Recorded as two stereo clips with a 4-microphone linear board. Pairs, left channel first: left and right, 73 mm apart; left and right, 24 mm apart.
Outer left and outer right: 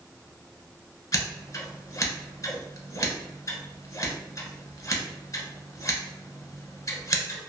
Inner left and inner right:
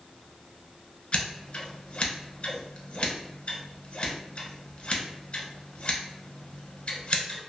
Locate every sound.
1.1 s scissors: 45° left (ahead or behind), 0.8 m